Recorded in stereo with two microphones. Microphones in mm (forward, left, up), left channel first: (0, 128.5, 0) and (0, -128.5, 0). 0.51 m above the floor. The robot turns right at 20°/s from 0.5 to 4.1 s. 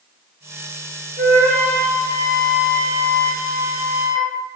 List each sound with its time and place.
1.2 s a flute: 65° right, 1.4 m; by 4.3 s 5° right, 1.4 m